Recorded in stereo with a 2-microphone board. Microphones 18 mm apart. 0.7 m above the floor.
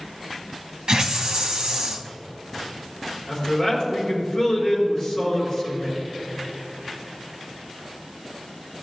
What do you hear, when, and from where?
0.9 s a hiss: 45° right (ahead or behind), 1.1 m
3.3 s a man speaking: 45° left (ahead or behind), 3.5 m